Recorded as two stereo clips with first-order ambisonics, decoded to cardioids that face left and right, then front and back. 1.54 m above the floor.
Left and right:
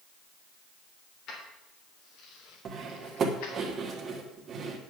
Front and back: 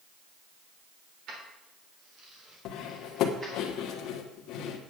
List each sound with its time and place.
1.3 s keys jangling: 140° left, 3.5 m; by 3.6 s 110° left, 4 m
2.6 s cutlery clinking: 30° right, 1.4 m